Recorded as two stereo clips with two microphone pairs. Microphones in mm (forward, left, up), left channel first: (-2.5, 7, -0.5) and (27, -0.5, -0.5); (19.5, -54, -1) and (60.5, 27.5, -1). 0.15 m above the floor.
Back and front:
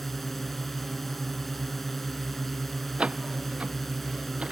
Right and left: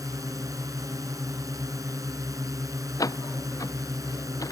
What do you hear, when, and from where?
0.0 s a drone: 85° left
3.0 s a door slam: 65° right